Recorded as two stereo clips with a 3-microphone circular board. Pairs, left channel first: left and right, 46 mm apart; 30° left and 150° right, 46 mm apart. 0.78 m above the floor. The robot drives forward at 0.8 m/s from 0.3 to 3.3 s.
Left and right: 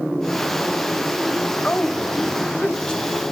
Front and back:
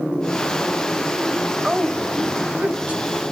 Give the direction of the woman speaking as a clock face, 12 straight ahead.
7 o'clock.